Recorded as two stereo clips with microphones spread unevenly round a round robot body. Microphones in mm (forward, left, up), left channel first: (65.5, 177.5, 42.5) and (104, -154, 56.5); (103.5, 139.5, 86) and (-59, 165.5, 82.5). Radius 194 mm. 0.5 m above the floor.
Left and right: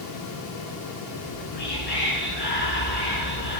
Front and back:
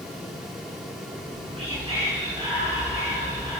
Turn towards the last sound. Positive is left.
turn(degrees=115)